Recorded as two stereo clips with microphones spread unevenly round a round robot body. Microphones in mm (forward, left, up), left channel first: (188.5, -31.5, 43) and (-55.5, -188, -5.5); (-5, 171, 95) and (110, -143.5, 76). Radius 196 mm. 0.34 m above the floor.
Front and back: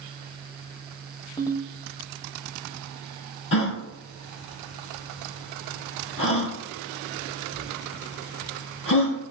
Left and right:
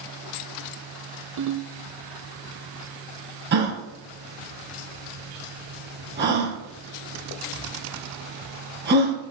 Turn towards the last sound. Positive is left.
turn(degrees=-10)